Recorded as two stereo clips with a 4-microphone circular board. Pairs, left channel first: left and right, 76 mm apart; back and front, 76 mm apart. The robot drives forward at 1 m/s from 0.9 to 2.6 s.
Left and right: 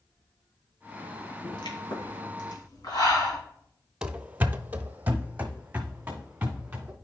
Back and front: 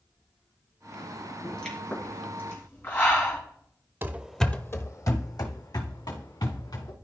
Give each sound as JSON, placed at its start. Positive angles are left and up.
{"t": 1.4, "sound": "a pop", "azimuth_deg": 95, "distance_m": 2.0}
{"t": 4.0, "sound": "running footsteps", "azimuth_deg": -25, "distance_m": 0.7}